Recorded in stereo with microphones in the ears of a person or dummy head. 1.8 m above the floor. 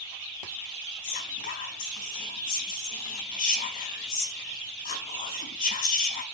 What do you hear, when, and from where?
1.0 s whispering: 45° left (ahead or behind), 4 m